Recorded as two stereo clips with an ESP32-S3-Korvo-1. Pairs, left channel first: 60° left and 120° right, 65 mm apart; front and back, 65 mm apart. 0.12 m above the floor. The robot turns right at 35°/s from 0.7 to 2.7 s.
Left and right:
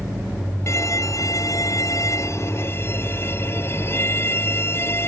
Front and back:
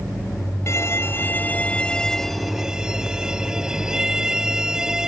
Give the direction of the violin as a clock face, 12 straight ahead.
11 o'clock.